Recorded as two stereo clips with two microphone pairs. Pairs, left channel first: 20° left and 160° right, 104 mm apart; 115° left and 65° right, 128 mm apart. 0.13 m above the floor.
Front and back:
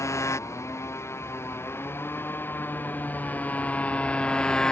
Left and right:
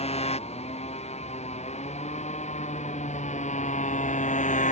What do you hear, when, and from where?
0.0 s a motorcycle: 85° left; by 4.7 s 105° left